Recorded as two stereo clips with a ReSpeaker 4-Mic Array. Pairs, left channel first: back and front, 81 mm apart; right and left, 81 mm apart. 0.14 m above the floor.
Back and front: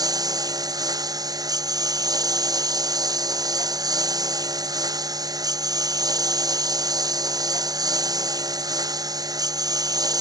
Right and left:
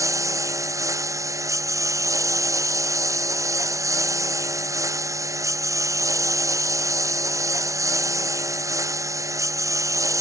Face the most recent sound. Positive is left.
turn(degrees=40)